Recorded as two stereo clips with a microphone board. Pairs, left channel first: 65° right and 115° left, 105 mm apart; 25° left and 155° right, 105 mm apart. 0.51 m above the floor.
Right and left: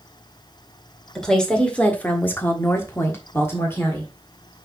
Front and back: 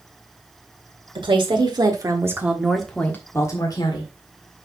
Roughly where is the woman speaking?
Behind right.